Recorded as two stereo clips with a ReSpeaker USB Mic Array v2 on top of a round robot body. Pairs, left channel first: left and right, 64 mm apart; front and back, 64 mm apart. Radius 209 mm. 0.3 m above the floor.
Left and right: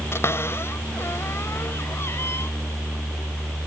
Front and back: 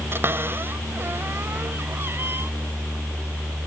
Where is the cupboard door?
135° left.